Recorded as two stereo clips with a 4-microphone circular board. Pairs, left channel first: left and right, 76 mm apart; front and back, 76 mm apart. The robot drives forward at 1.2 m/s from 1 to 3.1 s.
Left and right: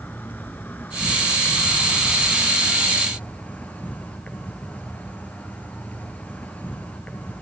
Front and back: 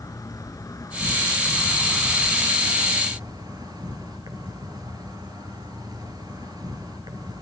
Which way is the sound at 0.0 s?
30° left.